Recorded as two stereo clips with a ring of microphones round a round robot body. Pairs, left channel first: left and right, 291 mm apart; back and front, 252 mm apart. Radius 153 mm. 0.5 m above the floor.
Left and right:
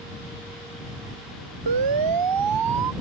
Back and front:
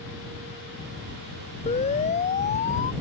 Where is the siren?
110° right.